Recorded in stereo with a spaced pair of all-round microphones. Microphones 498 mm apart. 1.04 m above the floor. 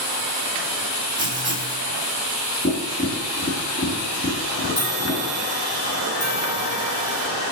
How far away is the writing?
About 2.5 m.